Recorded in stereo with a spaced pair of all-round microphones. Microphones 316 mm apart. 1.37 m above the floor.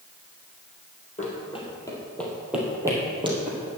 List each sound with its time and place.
1.2 s running footsteps: 25° left (ahead or behind), 2.5 m; by 3.7 s 20° right (ahead or behind), 3 m